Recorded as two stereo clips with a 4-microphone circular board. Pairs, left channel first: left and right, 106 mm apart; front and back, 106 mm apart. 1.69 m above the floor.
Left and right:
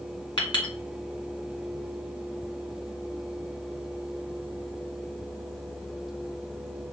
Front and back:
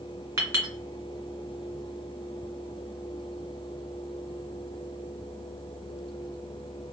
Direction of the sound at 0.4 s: 120° left.